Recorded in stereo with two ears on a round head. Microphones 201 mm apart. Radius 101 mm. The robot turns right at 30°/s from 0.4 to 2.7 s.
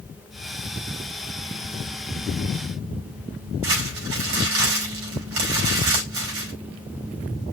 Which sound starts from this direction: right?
Crumpling, at 3.6 s.